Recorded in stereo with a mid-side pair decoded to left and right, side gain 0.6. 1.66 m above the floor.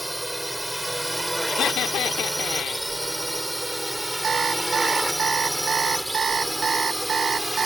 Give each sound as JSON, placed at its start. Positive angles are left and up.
{"t": 0.0, "sound": "a drone", "azimuth_deg": -5}
{"t": 1.5, "sound": "laughter", "azimuth_deg": 55}
{"t": 4.2, "sound": "an alarm clock", "azimuth_deg": -35}